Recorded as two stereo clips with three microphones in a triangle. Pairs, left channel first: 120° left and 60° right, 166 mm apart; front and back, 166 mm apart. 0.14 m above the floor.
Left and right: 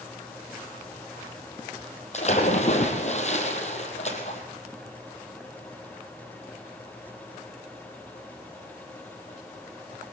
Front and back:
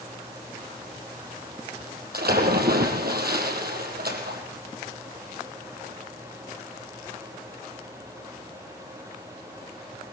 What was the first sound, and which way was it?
A splash, 165° left.